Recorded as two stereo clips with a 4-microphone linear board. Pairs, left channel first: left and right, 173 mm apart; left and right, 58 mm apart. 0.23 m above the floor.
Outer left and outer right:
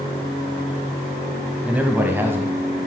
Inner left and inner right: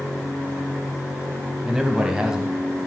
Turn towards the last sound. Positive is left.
turn(degrees=-15)  # may be behind; listen again after turning